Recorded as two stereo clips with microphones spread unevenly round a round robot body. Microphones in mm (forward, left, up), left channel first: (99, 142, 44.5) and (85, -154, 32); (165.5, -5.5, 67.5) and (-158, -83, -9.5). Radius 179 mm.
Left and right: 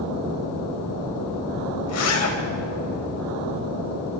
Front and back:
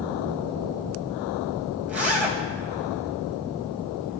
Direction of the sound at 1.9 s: 115° left.